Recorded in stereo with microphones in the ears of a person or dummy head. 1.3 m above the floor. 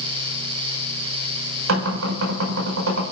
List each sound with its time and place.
1.7 s knocking: 90° right, 5 m